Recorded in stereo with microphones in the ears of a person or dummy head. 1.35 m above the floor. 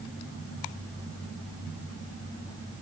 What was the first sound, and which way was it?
Only background noise.